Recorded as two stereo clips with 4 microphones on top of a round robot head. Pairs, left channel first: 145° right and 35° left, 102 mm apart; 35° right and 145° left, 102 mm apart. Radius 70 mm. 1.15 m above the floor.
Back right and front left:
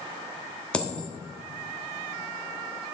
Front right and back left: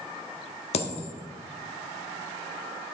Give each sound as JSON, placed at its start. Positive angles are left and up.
{"t": 0.7, "sound": "a dropped coin", "azimuth_deg": -65, "distance_m": 1.0}